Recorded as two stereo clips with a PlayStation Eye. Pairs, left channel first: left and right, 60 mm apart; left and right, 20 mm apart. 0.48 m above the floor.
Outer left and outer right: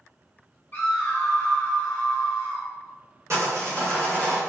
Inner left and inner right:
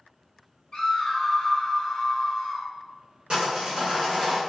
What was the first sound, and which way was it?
A scream, 35° left (ahead or behind).